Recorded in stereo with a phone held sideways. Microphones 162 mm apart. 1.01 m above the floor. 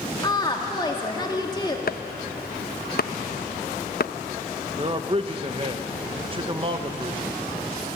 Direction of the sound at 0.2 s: 25° left (ahead or behind).